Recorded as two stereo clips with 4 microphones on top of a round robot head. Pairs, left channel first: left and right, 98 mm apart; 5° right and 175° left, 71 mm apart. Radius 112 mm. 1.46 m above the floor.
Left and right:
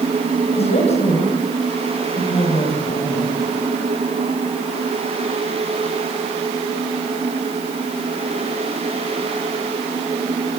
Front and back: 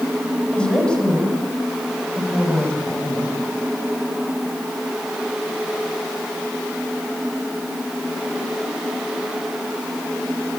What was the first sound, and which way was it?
A woman speaking, 70° left.